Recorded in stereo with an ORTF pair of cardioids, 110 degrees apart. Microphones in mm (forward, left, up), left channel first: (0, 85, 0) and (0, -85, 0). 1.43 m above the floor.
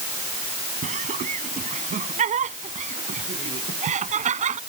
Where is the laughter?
45° right.